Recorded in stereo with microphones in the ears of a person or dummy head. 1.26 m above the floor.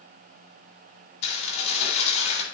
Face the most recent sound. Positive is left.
turn(degrees=45)  # may be behind; listen again after turning